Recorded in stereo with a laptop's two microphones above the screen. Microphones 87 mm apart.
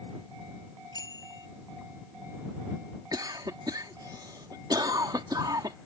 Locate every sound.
0.9 s a bicycle bell: 45° left (ahead or behind)
3.1 s a cough: 50° right (ahead or behind)